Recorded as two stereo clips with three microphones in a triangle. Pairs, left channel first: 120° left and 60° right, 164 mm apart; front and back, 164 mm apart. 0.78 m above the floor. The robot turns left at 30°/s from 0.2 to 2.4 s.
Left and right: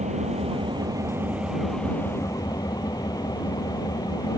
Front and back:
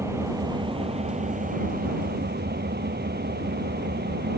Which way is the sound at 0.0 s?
105° right.